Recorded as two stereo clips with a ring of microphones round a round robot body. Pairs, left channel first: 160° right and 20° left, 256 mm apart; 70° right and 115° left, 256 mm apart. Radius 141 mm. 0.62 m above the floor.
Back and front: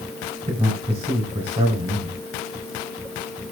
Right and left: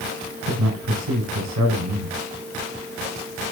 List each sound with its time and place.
0.5 s a man speaking: 90° left, 3 m